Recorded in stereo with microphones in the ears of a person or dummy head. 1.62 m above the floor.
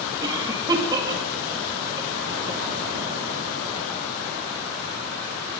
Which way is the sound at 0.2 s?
20° right (ahead or behind).